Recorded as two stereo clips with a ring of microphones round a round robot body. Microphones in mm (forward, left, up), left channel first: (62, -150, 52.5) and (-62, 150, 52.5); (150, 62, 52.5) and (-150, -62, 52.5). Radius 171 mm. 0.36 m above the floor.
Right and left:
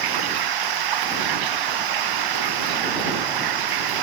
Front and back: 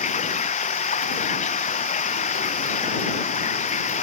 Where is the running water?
95° left.